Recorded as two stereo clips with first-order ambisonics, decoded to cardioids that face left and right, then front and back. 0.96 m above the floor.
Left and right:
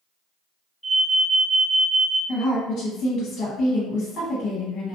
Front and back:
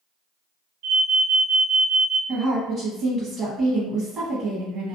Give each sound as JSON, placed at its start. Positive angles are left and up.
{"t": 0.8, "sound": "an alarm", "azimuth_deg": 175, "distance_m": 0.8}
{"t": 2.3, "sound": "a woman speaking", "azimuth_deg": 120, "distance_m": 0.9}